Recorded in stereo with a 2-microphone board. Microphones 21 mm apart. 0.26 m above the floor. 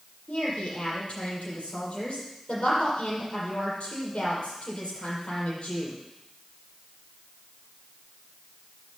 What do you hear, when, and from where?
0.3 s a woman speaking: 75° left (ahead or behind), 6 m